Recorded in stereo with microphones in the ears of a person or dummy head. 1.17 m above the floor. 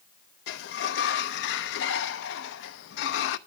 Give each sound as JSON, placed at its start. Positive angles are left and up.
{"t": 0.5, "sound": "a sliding door", "side_deg": 65, "distance_m": 0.7}